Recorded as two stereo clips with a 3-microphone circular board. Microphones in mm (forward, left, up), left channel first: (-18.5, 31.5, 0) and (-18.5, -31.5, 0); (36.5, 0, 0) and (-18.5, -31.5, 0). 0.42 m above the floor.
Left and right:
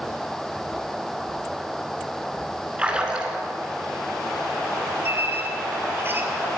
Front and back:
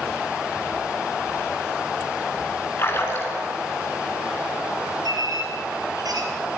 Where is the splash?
20° right, 3.5 m.